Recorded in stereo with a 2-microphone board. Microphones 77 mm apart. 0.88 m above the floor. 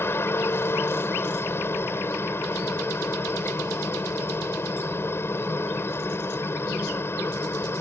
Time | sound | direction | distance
0.0 | a helicopter | 35° left (ahead or behind) | ?